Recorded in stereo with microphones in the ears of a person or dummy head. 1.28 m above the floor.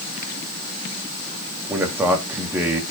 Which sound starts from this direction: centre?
A man speaking, at 1.7 s.